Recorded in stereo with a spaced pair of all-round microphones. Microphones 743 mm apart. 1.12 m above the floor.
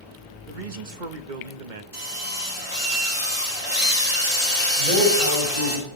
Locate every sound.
0.5 s a man speaking: 85° right, 1.3 m
1.9 s a drill: 45° right (ahead or behind), 9 m
4.8 s a man speaking: 55° right (ahead or behind), 5 m